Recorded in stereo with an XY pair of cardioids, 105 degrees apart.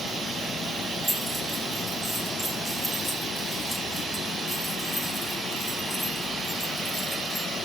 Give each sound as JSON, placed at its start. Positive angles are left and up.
{"t": 1.0, "sound": "keys jangling", "azimuth_deg": 0, "distance_m": 7.0}